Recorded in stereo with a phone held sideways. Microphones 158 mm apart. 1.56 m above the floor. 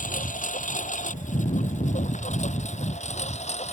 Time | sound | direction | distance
0.0 | a lawn mower | 55° left (ahead or behind) | ?